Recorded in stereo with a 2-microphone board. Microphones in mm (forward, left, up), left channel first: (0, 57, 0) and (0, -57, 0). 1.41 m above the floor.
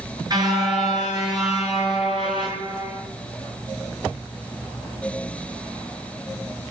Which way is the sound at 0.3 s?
35° right (ahead or behind).